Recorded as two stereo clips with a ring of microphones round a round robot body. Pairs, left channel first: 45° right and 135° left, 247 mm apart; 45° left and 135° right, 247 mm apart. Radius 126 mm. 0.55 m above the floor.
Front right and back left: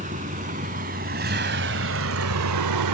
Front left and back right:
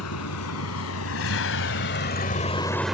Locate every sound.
0.0 s a vehicle: 75° left; by 3.0 s 140° left